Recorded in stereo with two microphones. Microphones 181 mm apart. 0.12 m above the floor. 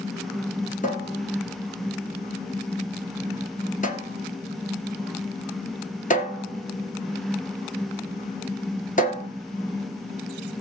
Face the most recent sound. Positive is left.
turn(degrees=45)  # may be behind; listen again after turning